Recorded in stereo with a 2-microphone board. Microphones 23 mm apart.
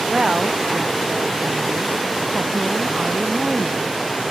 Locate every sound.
0.1 s a woman speaking: 50° right (ahead or behind)